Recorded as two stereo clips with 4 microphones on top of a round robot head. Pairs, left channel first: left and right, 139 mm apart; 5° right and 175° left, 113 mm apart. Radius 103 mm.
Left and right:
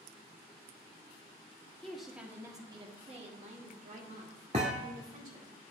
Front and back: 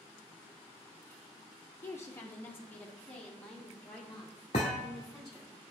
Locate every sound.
1.8 s a woman speaking: 20° left, 0.8 m; by 5.5 s 95° right, 2 m
4.5 s a thud: 45° right, 0.7 m